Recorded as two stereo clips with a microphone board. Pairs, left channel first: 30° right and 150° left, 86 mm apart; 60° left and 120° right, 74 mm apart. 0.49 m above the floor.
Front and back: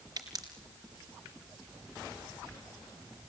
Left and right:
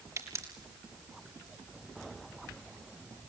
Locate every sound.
0.2 s a pop: 165° right, 4.5 m